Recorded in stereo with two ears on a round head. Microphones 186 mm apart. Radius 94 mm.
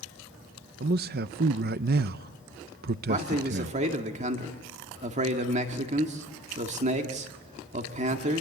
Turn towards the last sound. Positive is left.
turn(degrees=-35)  # may be behind; listen again after turning